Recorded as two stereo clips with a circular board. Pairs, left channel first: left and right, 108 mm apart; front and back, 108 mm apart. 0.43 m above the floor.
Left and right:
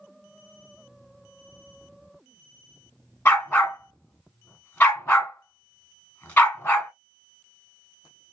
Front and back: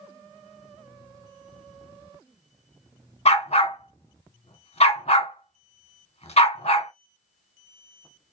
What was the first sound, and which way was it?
A dog barking, 20° left.